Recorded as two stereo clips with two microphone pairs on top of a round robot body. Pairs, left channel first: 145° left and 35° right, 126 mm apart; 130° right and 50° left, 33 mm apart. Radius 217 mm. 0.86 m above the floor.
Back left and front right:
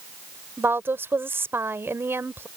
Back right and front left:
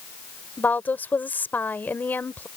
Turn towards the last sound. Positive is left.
turn(degrees=-110)